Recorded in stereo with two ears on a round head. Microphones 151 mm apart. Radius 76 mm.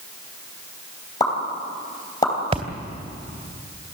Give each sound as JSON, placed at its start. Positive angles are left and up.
{"t": 1.2, "sound": "a pop", "side_deg": 20, "distance_m": 3.5}
{"t": 2.5, "sound": "a splash", "side_deg": -35, "distance_m": 2.0}